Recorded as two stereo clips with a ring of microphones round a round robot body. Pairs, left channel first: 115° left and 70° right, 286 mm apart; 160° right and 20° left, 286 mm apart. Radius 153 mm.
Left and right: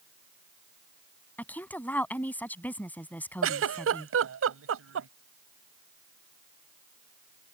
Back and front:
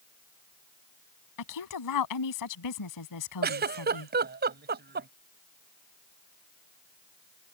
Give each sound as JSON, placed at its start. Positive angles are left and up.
{"t": 1.4, "sound": "a woman speaking", "azimuth_deg": -165}
{"t": 3.4, "sound": "a giggle", "azimuth_deg": -30}